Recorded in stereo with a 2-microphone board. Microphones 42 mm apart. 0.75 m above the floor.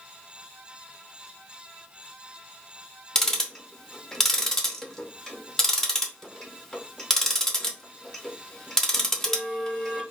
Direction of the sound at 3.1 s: 10° left (ahead or behind).